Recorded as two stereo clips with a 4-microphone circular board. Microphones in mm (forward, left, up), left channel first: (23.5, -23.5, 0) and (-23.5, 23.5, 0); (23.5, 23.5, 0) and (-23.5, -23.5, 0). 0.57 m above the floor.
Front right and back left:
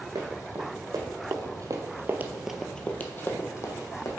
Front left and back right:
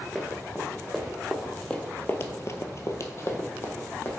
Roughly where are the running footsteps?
Behind left.